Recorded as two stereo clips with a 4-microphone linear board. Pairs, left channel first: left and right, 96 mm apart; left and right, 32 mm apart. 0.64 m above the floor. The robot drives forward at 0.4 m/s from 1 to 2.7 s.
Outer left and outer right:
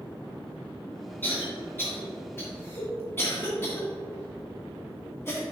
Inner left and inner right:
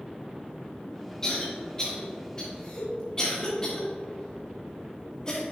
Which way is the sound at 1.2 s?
20° left (ahead or behind).